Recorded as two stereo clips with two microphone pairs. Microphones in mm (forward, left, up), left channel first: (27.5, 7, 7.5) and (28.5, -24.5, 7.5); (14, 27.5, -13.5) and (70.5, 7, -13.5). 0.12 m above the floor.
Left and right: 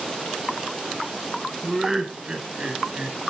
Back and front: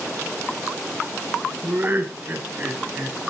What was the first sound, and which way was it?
Laughter, 5° right.